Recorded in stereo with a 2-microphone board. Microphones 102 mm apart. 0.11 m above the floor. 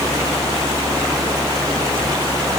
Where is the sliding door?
I don't hear a sliding door.